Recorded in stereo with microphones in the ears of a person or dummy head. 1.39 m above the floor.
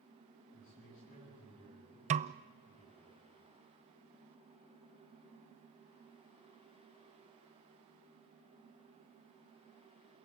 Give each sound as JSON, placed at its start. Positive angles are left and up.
{"t": 0.5, "sound": "a man speaking", "side_deg": 40, "distance_m": 9.5}
{"t": 2.1, "sound": "a snare drum", "side_deg": -35, "distance_m": 0.5}